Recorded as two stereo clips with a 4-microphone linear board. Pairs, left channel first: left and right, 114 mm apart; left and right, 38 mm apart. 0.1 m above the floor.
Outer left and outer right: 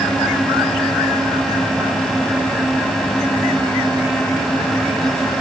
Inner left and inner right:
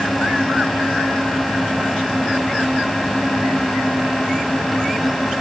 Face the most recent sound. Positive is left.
No sound to turn to.